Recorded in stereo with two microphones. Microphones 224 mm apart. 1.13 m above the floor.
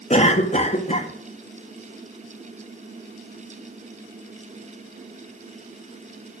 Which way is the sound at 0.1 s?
30° left (ahead or behind).